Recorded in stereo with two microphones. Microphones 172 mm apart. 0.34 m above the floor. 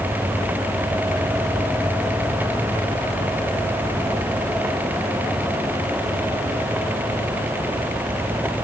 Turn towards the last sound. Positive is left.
No sound to turn to.